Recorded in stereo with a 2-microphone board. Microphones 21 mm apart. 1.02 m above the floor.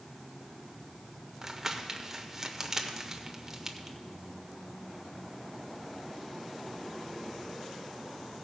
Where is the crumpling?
20° right (ahead or behind), 0.7 m.